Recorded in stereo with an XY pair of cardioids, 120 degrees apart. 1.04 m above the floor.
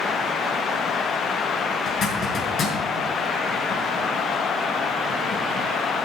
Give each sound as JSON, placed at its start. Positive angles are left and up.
{"t": 1.9, "sound": "a zipper", "azimuth_deg": 55, "distance_m": 5.5}